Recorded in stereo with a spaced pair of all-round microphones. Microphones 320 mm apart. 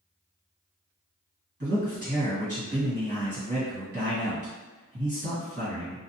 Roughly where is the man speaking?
Right.